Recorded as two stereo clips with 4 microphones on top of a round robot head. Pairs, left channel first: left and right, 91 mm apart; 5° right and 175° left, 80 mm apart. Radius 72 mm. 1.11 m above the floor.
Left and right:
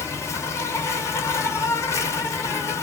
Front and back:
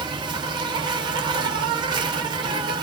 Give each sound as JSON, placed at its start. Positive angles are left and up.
{"t": 0.0, "sound": "an insect", "azimuth_deg": 150, "distance_m": 1.6}